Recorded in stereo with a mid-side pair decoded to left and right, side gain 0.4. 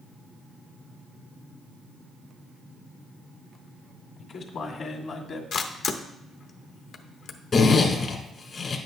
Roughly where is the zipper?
Ahead left.